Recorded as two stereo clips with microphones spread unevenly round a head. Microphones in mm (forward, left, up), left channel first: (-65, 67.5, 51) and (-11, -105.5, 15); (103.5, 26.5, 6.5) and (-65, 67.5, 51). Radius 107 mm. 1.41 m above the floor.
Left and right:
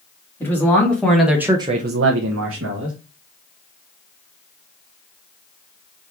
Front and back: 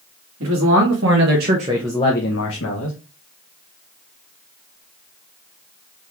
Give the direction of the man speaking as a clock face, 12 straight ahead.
6 o'clock.